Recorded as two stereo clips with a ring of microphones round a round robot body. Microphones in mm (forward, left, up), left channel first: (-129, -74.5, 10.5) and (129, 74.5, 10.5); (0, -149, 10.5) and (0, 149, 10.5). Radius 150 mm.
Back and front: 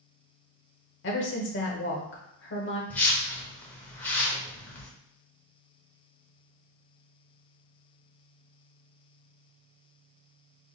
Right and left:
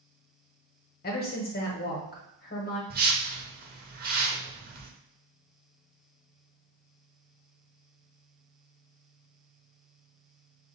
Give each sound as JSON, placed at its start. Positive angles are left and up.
{"t": 1.0, "sound": "a woman speaking", "azimuth_deg": -130, "distance_m": 1.0}
{"t": 2.9, "sound": "a whoosh", "azimuth_deg": 130, "distance_m": 0.8}